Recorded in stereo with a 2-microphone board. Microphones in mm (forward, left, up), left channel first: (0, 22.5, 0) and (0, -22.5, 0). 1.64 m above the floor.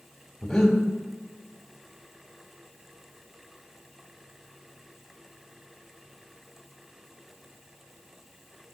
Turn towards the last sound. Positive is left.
turn(degrees=15)  # may be behind; listen again after turning